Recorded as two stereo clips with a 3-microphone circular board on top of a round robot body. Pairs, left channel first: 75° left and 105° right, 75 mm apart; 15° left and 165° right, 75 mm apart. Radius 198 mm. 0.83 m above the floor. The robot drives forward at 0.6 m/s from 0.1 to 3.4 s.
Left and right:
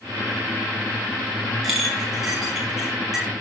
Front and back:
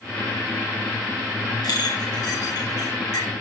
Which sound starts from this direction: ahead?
A clink, at 1.6 s.